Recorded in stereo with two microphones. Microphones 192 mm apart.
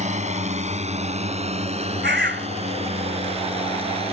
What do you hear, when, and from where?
0.0 s a drone: 35° right (ahead or behind); by 4.1 s 30° right (ahead or behind)
2.0 s a bird: 60° right (ahead or behind)